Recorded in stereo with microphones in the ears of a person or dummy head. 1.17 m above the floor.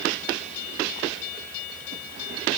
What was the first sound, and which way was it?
Only background noise.